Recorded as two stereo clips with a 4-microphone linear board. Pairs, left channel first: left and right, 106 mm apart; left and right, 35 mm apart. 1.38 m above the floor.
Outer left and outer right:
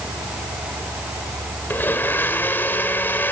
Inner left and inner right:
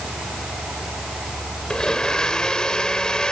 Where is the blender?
20° left (ahead or behind), 2.5 m.